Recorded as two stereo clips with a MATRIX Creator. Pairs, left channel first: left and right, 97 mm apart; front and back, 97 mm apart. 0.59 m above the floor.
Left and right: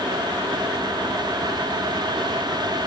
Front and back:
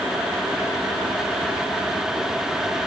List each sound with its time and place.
Only background noise.